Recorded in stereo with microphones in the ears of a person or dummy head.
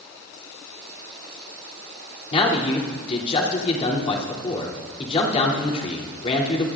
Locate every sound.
2.3 s a man speaking: 30° left (ahead or behind), 3 m